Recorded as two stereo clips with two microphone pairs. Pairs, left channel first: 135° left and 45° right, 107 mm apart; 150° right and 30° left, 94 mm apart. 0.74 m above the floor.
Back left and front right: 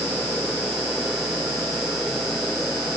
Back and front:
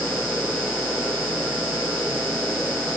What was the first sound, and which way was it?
Only background noise.